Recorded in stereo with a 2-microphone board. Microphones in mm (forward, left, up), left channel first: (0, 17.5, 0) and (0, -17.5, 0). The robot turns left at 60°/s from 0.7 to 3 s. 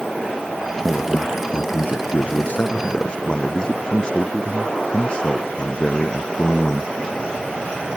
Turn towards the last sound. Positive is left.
turn(degrees=25)